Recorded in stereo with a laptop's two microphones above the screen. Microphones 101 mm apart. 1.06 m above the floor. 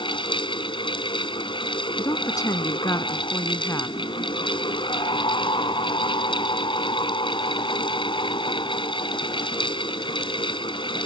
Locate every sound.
0.0 s a fan: 55° left (ahead or behind)
2.0 s a woman speaking: 35° left (ahead or behind)